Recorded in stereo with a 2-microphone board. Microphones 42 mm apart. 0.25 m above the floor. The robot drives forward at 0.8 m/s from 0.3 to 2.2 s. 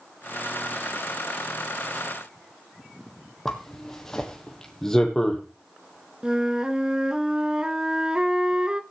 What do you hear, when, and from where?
3.5 s a zipper: 10° left (ahead or behind), 1.7 m
6.2 s a flute: 20° right (ahead or behind), 0.6 m